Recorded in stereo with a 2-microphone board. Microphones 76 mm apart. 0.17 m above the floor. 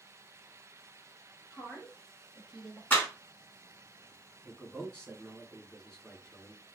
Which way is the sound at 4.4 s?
10° left (ahead or behind).